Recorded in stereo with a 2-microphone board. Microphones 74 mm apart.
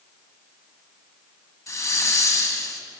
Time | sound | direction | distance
1.7 | a hiss | 45° left (ahead or behind) | 1.8 m